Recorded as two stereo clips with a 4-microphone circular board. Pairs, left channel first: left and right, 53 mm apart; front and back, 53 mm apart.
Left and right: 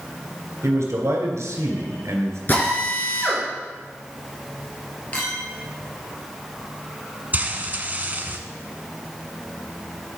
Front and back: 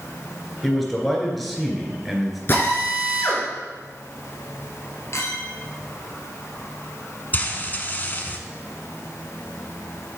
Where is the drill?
40° left, 2.5 m.